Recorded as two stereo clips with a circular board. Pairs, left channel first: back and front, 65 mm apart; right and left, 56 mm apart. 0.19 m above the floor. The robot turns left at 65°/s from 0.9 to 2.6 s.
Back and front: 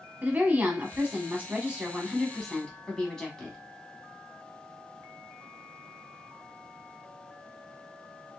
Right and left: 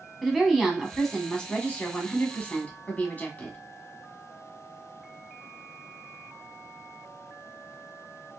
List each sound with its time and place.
0.2 s a woman speaking: straight ahead, 1.1 m; by 3.6 s 110° right, 1.1 m